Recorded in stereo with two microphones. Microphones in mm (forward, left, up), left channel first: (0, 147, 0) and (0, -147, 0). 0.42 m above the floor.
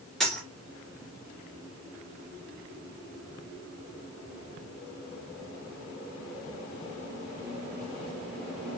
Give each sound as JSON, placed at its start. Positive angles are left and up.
{"t": 0.2, "sound": "a dropped coin", "side_deg": 0, "distance_m": 3.0}